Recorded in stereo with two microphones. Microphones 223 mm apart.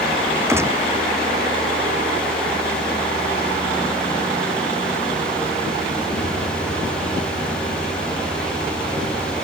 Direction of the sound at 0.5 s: 10° right (ahead or behind).